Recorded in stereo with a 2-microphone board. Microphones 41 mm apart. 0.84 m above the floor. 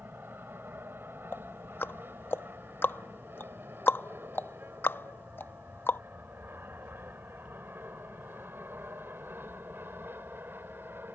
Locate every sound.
0.0 s an aircraft: 65° right (ahead or behind)
1.3 s ticking: 65° left (ahead or behind)